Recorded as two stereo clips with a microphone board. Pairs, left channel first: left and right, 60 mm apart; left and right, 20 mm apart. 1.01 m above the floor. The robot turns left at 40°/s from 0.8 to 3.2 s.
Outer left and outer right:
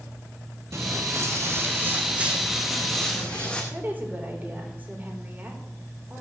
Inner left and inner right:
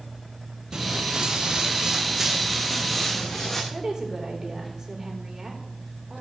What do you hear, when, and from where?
0.7 s footsteps: 45° right (ahead or behind), 1.4 m; by 3.6 s 15° left (ahead or behind), 3.5 m
3.7 s a woman speaking: 30° right (ahead or behind), 3.5 m